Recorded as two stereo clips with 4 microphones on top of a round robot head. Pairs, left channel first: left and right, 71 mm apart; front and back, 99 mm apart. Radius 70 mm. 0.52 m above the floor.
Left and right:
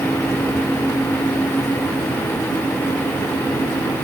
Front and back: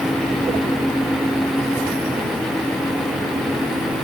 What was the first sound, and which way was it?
Only background noise.